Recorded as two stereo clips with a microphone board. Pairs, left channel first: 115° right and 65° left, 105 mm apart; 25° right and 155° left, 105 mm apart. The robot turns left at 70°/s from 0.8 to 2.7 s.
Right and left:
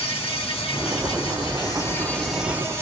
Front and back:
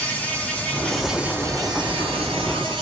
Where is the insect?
95° right, 0.9 m; by 2.8 s 130° left, 0.9 m.